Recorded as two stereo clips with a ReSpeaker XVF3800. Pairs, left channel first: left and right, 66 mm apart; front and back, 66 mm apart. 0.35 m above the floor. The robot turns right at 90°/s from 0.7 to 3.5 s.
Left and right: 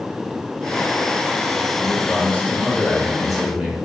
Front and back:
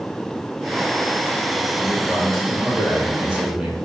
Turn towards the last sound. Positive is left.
turn(degrees=-145)